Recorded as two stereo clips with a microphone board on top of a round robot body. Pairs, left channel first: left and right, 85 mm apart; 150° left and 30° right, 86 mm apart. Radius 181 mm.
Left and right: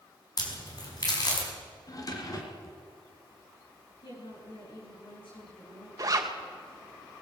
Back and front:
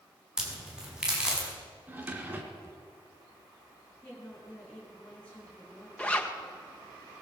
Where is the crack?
50° left, 5.5 m.